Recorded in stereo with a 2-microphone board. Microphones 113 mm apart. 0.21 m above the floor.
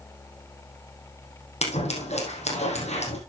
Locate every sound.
1.6 s scissors: 75° left (ahead or behind), 3.5 m